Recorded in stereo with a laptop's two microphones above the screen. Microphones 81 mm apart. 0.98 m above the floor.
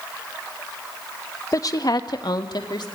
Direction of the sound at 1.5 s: 45° left (ahead or behind).